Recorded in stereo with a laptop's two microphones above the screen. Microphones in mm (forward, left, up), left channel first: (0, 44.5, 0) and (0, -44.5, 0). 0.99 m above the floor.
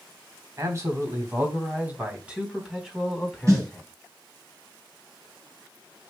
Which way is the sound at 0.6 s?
40° right (ahead or behind).